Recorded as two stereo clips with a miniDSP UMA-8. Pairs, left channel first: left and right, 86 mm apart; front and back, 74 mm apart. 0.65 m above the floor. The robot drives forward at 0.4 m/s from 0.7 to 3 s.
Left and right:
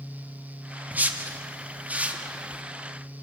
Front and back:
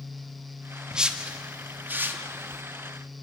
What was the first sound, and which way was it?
A whoosh, 115° right.